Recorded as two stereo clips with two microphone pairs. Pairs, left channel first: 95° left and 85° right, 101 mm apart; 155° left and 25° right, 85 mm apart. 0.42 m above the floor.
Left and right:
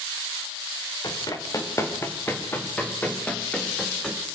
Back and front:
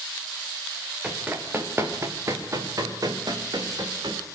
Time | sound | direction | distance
1.0 | running footsteps | 45° left | 4.5 m